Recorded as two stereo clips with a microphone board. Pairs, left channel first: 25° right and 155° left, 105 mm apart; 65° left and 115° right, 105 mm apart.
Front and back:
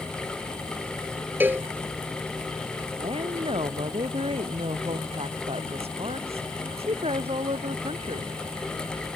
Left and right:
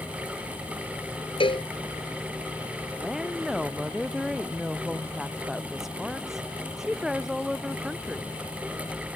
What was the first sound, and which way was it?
A cowbell, 90° left.